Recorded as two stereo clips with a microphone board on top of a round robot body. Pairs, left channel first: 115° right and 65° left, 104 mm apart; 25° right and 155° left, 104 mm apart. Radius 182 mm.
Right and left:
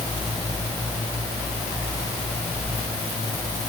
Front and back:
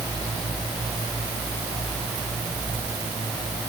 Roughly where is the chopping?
No chopping in this recording.